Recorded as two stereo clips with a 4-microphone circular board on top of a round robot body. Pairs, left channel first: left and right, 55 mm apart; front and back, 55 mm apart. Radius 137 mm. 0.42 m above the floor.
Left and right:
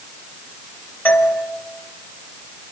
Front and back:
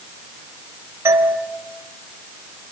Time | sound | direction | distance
1.1 | a doorbell | 140° left | 3.5 m